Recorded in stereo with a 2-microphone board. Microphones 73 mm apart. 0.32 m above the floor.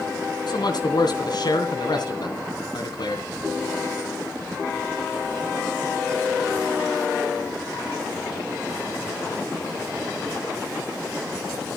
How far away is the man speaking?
About 2.5 m.